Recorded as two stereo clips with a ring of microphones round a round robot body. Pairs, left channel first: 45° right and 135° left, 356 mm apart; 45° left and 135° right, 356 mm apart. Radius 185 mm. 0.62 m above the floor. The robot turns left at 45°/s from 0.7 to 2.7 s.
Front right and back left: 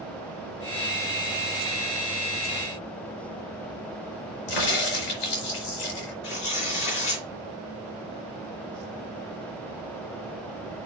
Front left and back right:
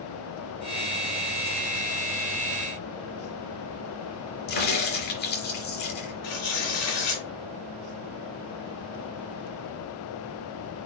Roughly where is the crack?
Ahead.